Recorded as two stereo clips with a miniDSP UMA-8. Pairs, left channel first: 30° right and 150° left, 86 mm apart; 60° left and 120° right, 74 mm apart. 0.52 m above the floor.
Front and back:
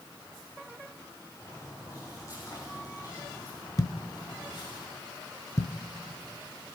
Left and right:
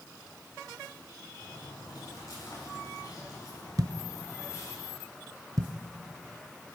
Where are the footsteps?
20° left, 7 m; by 4.8 s 5° left, 6.5 m.